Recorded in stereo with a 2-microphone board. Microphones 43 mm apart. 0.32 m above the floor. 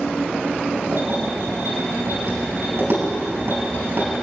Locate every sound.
0.9 s keys jangling: 70° right (ahead or behind), 5 m